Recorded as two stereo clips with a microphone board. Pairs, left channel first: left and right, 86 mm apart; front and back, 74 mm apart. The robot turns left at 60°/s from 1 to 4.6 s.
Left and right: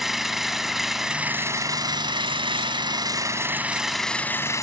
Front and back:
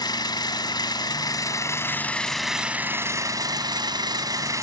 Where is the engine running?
5° right, 1.8 m; by 4.6 s 140° left, 1.8 m.